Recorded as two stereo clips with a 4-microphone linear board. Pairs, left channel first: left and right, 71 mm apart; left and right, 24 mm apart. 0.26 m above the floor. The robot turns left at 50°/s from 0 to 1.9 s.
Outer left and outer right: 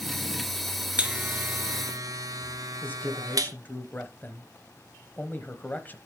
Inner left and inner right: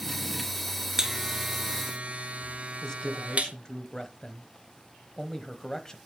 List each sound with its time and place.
1.0 s a buzzer: 20° right (ahead or behind), 0.7 m; by 3.5 s 65° right (ahead or behind), 0.7 m
2.8 s a man speaking: 30° left (ahead or behind), 1.0 m